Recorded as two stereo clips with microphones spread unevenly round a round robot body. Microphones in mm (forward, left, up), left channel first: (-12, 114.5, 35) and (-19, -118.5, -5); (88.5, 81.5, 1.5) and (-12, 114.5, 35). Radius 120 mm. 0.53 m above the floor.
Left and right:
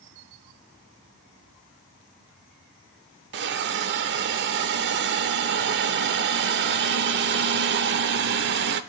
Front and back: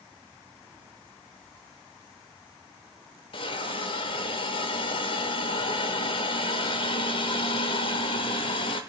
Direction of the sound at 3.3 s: 55° right.